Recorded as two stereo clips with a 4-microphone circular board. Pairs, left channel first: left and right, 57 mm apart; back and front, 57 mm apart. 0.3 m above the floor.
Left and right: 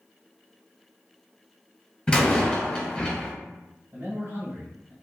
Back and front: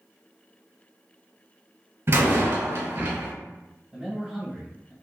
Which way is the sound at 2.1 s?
20° left.